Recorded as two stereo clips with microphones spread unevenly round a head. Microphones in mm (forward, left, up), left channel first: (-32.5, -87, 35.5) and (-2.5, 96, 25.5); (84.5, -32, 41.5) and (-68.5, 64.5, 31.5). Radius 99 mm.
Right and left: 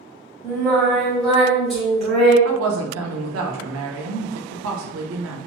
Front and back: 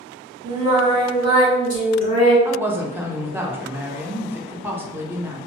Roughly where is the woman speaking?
Left.